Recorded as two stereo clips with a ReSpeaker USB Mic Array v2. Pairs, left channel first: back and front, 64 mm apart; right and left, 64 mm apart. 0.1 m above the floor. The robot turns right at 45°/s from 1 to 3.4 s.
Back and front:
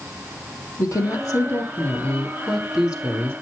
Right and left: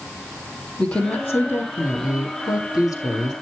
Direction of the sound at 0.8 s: 160° right.